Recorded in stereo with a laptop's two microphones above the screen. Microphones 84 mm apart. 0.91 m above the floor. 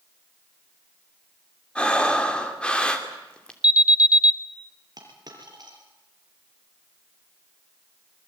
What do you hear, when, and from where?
1.8 s breathing: 10° left (ahead or behind), 3 m
3.6 s an alarm: 15° right (ahead or behind), 0.8 m
5.0 s a dropped coin: 50° right (ahead or behind), 4.5 m